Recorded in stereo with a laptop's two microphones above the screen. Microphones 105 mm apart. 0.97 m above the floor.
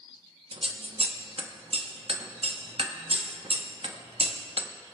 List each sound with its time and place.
0.5 s scissors: 65° right (ahead or behind), 0.7 m